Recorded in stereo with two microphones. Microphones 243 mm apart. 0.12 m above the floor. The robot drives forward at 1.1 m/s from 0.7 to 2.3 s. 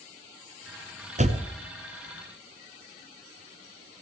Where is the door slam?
30° right (ahead or behind), 0.9 m; by 1.5 s 25° right (ahead or behind), 1.0 m.